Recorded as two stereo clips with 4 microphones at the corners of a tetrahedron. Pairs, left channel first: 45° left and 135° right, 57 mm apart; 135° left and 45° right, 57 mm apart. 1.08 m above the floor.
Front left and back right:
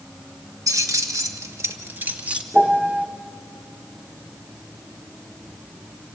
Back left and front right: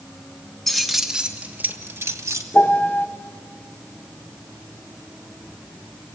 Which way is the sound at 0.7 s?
140° right.